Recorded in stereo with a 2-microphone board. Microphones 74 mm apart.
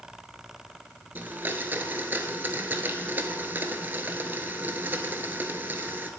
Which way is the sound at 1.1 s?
25° right (ahead or behind).